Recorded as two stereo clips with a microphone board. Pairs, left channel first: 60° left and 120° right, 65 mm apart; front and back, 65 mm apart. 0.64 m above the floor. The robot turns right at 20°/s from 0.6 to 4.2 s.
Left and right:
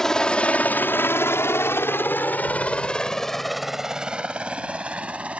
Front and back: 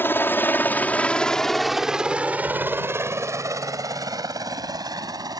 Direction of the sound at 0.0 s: 20° right.